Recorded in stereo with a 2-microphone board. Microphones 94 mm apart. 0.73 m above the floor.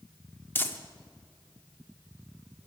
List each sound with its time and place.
0.6 s crumpling: 25° left (ahead or behind), 0.8 m